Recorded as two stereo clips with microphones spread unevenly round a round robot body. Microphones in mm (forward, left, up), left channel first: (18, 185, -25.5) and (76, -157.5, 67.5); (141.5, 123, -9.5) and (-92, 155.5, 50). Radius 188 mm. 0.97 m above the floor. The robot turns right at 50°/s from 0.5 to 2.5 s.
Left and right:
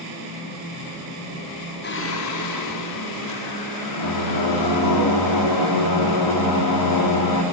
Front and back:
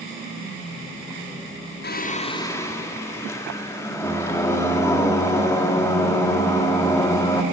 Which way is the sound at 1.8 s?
40° left.